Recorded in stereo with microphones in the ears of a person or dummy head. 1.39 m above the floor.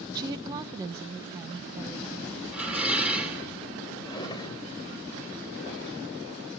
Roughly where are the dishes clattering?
Centre.